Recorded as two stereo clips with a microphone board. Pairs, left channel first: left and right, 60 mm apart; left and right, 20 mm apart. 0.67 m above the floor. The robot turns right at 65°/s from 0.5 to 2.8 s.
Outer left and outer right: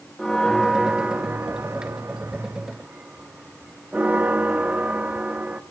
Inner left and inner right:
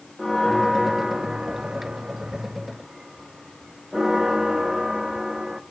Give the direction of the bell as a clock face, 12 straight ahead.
6 o'clock.